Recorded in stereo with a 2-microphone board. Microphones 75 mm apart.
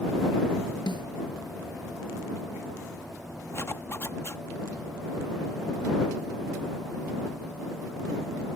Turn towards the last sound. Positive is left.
turn(degrees=35)  # may be behind; listen again after turning